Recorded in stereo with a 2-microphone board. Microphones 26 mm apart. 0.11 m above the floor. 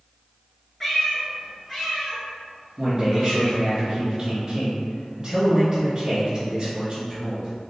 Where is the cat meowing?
10° left (ahead or behind), 0.8 m; by 3.6 s 5° left (ahead or behind), 2.0 m.